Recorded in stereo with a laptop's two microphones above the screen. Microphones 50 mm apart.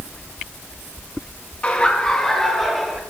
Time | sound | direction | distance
1.6 | laughter | 25° left (ahead or behind) | 1.6 m